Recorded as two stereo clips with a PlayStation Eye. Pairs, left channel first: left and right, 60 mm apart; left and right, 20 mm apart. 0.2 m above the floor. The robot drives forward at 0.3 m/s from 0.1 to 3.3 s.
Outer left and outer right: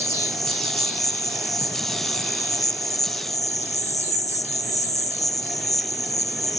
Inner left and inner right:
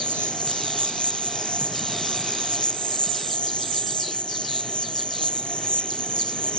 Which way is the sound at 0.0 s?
65° left (ahead or behind).